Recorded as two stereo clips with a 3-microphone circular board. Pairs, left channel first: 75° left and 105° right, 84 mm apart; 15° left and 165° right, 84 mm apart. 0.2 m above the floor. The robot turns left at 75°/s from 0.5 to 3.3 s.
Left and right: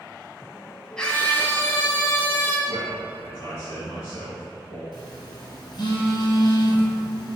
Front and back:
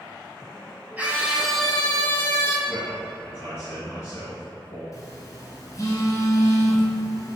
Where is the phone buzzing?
60° left, 1.1 m.